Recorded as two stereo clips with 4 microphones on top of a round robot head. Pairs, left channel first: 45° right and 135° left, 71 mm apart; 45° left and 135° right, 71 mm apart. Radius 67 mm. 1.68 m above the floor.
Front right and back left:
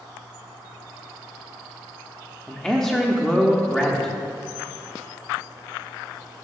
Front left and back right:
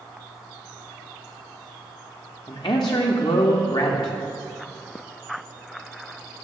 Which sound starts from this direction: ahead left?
A man speaking, at 2.5 s.